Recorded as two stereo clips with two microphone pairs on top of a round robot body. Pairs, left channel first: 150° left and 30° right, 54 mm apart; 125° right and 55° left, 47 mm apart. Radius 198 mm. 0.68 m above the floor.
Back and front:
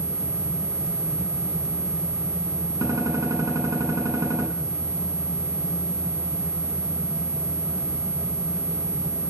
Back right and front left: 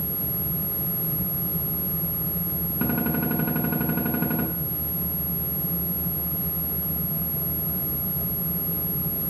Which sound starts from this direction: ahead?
A gunshot, at 2.8 s.